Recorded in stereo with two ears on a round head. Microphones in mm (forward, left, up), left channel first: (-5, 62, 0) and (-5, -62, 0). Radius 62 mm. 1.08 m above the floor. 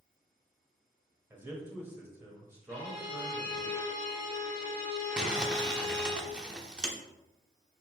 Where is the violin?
70° left (ahead or behind), 2.5 m.